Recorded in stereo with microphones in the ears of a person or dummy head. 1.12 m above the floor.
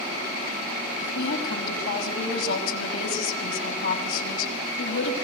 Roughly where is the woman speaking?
Left.